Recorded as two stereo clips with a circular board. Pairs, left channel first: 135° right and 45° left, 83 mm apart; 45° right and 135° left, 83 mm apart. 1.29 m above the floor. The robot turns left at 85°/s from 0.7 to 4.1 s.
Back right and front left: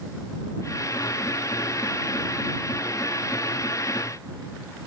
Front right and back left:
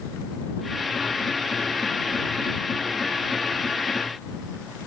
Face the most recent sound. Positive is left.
No sound to turn to.